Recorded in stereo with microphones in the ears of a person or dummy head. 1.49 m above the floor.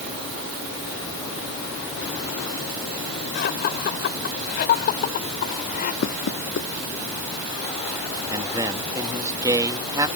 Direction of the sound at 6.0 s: 65° left (ahead or behind).